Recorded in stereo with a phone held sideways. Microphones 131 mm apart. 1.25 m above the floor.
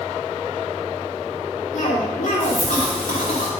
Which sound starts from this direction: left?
A cough, at 1.7 s.